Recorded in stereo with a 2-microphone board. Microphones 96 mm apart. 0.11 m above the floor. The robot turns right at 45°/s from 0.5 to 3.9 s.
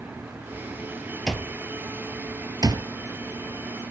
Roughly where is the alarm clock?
Centre.